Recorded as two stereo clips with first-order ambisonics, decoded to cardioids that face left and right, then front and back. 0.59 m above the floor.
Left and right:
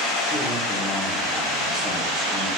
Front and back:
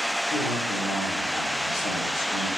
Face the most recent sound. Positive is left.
turn(degrees=15)